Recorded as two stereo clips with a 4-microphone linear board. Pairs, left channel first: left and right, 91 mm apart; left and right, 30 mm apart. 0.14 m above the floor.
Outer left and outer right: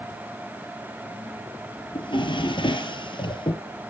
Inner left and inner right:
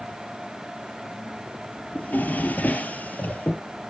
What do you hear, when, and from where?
1.9 s a drawer: 65° left (ahead or behind), 1.6 m